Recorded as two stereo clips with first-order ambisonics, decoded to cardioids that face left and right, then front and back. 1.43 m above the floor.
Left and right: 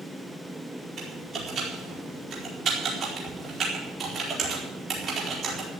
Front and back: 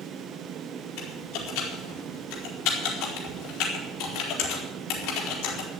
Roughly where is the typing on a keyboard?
Ahead right.